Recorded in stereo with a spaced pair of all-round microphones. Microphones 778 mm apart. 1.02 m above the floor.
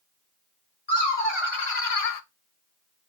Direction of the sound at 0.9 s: 30° left (ahead or behind).